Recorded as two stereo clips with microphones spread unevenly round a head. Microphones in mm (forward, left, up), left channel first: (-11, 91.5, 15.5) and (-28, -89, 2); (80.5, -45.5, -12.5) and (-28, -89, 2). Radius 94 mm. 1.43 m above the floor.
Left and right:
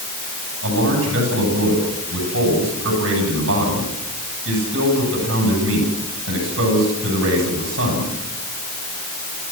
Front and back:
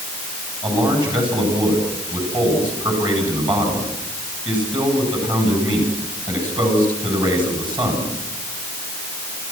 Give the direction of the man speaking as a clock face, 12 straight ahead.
4 o'clock.